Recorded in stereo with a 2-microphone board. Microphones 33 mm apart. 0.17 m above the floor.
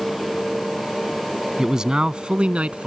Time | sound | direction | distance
1.6 | a man speaking | 15° right (ahead or behind) | ?